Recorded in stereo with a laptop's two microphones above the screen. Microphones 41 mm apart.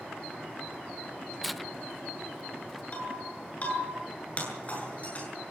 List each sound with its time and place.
1.4 s tearing paper: centre (ahead or behind), 0.5 m
2.9 s breaking glass: 35° left (ahead or behind), 9 m